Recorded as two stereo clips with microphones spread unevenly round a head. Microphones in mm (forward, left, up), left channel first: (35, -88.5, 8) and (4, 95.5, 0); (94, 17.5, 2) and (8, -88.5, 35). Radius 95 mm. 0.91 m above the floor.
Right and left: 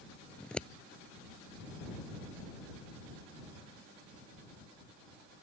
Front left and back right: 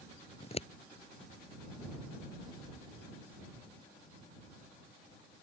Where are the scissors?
5° left.